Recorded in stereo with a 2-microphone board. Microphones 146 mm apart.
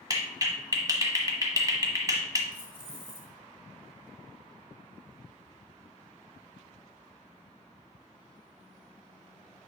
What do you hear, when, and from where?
0.1 s a clap: 25° right (ahead or behind), 1.2 m
2.5 s keys jangling: 15° right (ahead or behind), 2.5 m